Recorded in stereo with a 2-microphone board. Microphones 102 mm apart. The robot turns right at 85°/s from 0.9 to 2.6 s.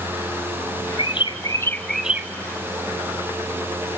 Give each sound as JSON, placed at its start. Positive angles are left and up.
{"t": 1.0, "sound": "a bird", "azimuth_deg": 100, "distance_m": 0.6}